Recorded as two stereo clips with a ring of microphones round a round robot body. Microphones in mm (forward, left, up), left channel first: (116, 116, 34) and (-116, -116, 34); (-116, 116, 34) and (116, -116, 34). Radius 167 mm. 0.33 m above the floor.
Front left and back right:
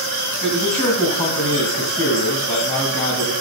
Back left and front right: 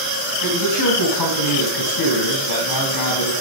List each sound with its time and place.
0.4 s a man speaking: 115° left, 3 m